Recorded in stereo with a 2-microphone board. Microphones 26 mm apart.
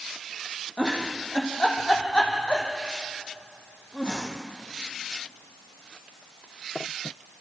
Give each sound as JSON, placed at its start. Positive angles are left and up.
{"t": 0.8, "sound": "a giggle", "side_deg": 35, "distance_m": 3.5}